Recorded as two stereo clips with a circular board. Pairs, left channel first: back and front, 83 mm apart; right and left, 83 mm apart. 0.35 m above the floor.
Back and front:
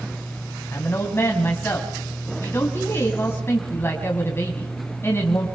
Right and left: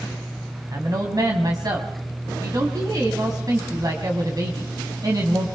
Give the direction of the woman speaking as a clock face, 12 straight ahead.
8 o'clock.